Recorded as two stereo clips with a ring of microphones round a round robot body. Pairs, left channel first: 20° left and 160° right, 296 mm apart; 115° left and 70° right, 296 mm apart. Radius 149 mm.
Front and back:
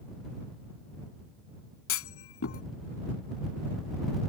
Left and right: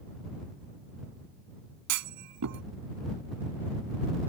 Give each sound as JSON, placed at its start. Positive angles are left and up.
{"t": 1.9, "sound": "a clunk", "azimuth_deg": -25}